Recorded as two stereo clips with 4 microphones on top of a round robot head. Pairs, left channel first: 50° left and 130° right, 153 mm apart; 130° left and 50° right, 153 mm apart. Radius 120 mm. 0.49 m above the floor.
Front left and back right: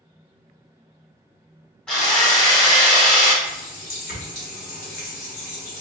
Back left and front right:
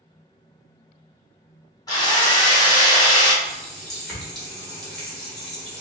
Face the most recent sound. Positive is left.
turn(degrees=45)